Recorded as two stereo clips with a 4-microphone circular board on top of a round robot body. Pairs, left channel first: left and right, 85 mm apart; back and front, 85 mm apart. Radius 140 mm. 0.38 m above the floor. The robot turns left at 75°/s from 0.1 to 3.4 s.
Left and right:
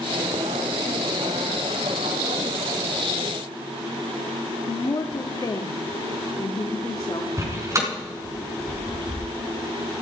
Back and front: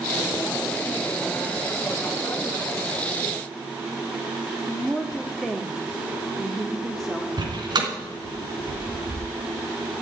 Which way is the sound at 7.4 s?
35° right.